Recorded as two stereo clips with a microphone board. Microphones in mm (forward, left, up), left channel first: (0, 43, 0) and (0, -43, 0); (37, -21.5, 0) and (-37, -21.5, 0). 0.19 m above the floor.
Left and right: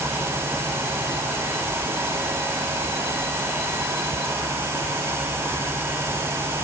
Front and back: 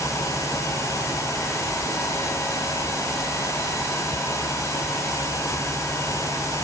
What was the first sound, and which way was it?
Only background noise.